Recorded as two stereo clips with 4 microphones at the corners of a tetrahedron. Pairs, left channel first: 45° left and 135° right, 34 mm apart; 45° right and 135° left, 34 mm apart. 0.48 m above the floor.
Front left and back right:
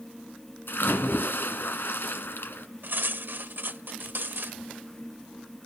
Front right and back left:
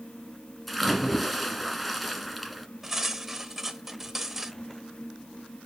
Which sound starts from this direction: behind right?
Cutlery clinking, at 2.8 s.